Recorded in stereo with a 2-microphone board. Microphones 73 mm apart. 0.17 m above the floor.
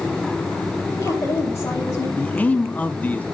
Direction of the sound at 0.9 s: 35° left (ahead or behind).